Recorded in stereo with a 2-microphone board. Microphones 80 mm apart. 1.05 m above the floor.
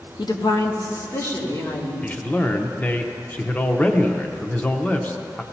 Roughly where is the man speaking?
Centre.